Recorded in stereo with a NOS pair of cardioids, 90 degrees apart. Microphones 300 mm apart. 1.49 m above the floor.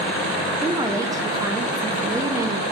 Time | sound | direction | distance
0.6 | a woman speaking | 10° right | 0.8 m